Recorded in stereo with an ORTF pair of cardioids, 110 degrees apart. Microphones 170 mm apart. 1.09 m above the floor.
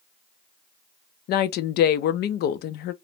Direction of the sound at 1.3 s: 65° left.